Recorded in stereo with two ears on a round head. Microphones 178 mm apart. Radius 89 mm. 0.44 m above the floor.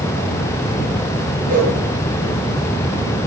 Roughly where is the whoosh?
Right.